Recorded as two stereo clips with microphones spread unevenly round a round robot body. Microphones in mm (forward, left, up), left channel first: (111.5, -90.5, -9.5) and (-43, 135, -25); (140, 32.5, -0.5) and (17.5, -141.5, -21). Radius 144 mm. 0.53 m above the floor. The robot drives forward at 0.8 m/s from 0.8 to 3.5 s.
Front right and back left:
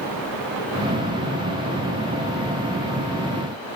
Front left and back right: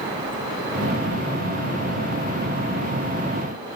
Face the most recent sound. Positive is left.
No sound to turn to.